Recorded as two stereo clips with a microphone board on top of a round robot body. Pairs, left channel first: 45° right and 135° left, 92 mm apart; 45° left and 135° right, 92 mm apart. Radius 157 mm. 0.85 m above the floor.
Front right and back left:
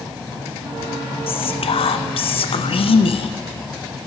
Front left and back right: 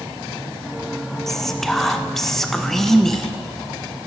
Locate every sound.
1.3 s whispering: 40° right, 0.6 m